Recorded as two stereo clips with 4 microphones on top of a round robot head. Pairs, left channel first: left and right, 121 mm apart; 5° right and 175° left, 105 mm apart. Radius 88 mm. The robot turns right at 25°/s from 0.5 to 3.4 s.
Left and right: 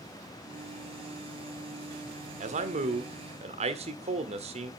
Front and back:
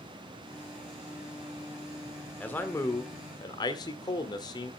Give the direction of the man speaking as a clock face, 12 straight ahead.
3 o'clock.